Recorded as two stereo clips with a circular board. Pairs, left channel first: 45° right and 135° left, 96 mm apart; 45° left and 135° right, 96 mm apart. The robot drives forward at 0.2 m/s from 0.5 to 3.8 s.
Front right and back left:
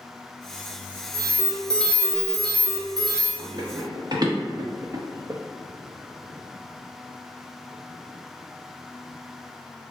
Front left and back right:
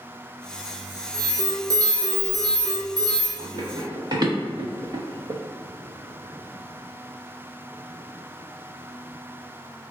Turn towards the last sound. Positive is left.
turn(degrees=-170)